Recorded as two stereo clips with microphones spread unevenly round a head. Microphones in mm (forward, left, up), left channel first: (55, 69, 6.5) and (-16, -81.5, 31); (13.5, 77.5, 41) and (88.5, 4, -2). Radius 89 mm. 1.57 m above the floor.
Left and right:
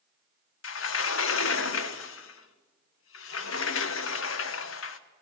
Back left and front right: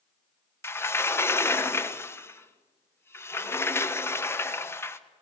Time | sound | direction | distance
0.6 | a sliding door | 70° left | 1.3 m